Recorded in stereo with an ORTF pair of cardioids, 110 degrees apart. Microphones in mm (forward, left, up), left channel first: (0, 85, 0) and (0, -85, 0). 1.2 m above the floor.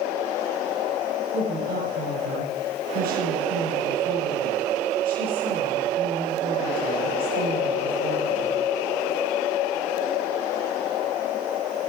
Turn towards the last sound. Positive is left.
turn(degrees=-65)